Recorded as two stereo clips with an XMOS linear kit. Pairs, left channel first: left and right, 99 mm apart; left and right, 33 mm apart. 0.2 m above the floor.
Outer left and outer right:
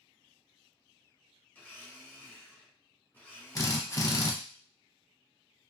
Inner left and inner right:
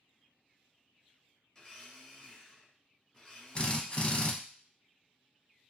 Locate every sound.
1.6 s a blender: 20° left (ahead or behind), 1.5 m
3.5 s a drill: 35° left (ahead or behind), 0.5 m